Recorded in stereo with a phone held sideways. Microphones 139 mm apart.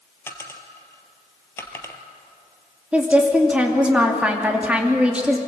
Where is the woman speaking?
10° right (ahead or behind), 2.5 m.